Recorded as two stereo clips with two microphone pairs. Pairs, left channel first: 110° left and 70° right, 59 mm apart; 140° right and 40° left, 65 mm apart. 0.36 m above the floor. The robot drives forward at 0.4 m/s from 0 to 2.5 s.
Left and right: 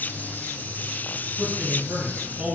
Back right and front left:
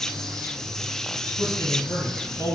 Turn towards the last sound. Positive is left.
turn(degrees=-135)